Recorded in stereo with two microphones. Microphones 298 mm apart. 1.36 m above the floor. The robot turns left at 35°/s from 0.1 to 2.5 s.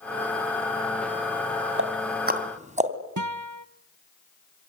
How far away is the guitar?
About 1.0 m.